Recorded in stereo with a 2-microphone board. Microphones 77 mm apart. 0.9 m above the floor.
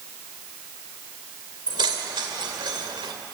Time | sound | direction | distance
1.7 | keys jangling | 85° right | 2.5 m